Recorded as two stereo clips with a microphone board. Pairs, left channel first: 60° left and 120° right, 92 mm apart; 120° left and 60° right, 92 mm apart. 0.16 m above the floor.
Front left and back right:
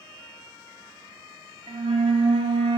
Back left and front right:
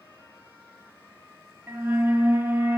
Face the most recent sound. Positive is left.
turn(degrees=-125)